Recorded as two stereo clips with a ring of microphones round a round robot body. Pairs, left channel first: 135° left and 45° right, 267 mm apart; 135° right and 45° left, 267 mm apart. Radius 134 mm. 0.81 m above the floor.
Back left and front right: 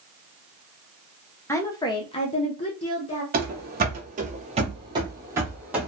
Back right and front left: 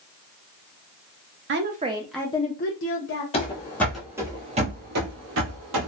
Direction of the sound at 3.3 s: 75° right.